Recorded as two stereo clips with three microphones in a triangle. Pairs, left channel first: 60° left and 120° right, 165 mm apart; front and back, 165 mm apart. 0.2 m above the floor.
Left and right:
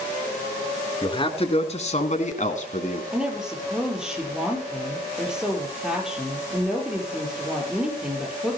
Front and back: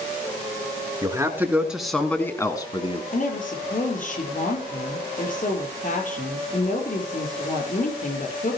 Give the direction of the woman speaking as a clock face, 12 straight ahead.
1 o'clock.